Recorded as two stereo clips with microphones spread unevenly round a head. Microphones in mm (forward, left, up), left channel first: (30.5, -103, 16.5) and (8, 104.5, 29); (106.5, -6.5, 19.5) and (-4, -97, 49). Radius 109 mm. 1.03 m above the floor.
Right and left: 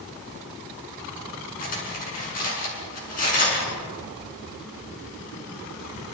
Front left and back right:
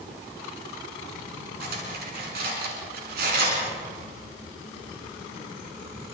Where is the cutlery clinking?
140° right, 6.5 m.